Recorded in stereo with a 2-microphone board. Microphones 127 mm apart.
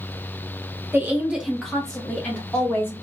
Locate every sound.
0.9 s a woman speaking: 20° right (ahead or behind), 1.1 m; by 2.9 s 20° left (ahead or behind), 1.9 m